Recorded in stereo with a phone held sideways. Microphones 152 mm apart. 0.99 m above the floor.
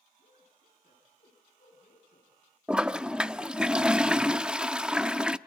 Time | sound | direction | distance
0.2 | a man speaking | 75° left (ahead or behind) | 8.5 m
2.7 | a toilet flushing | 5° right (ahead or behind) | 0.5 m